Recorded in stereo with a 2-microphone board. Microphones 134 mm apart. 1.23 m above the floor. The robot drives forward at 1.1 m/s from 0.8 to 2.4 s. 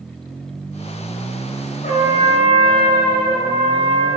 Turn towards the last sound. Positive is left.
turn(degrees=70)  # may be behind; listen again after turning